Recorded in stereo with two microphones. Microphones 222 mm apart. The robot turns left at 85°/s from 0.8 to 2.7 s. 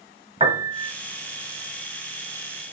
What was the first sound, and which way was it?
A piano, 25° right (ahead or behind).